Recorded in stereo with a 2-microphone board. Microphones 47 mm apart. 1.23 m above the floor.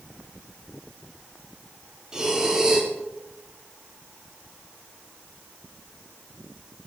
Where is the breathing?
15° right (ahead or behind), 2 m.